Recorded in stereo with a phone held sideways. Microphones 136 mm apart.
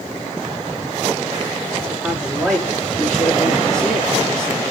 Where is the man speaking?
5° left (ahead or behind), 3.5 m.